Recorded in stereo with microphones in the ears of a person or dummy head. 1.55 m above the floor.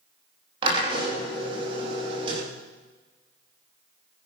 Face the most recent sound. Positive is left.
turn(degrees=-25)  # may be behind; listen again after turning